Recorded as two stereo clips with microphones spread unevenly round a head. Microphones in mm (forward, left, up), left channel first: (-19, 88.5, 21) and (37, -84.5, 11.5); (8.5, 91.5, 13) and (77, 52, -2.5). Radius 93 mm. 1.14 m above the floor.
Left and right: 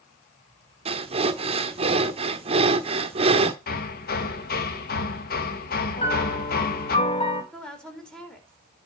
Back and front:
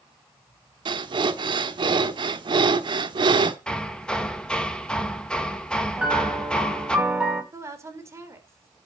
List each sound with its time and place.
0.8 s breathing: 15° right, 1.1 m
3.7 s hammering: 70° left, 1.5 m
6.0 s a piano: 45° left, 3 m
7.5 s a woman speaking: 25° left, 4 m